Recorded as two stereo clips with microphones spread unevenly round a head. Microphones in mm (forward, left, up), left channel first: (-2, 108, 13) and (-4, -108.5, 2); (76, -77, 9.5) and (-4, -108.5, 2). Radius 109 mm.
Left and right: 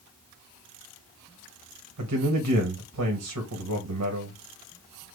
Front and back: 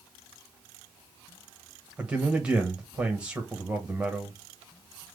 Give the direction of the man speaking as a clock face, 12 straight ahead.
3 o'clock.